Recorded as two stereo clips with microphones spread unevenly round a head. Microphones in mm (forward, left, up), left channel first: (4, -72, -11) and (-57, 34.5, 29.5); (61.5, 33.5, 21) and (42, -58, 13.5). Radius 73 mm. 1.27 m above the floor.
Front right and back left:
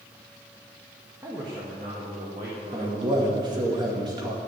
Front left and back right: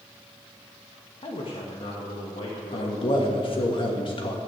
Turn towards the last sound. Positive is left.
turn(degrees=55)